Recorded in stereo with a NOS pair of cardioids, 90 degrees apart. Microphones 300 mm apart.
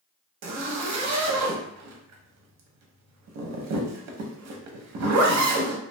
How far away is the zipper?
About 0.7 m.